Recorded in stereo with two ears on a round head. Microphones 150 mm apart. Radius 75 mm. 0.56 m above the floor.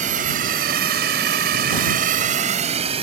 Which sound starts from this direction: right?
A drone, at 0.0 s.